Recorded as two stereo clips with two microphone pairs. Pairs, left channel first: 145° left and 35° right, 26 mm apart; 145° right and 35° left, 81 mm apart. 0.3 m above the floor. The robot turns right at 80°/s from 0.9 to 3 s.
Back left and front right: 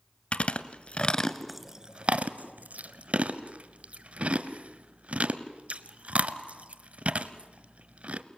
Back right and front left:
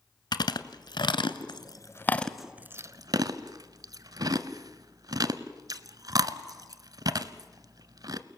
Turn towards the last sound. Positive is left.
turn(degrees=-5)